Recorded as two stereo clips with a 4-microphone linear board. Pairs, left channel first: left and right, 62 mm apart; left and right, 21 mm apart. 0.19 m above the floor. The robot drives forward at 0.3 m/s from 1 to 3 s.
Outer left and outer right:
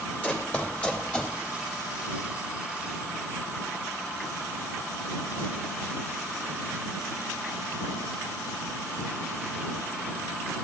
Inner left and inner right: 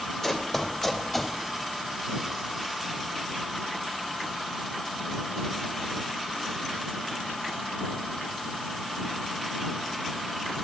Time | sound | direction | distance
0.2 | running footsteps | 25° left (ahead or behind) | 3.5 m